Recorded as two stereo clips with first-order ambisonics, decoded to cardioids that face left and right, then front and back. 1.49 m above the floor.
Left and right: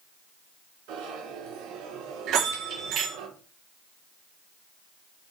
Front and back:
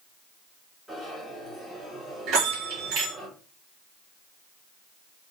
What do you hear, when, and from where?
0.9 s a zipper: 90° right, 4 m
2.3 s a bell: 140° right, 3 m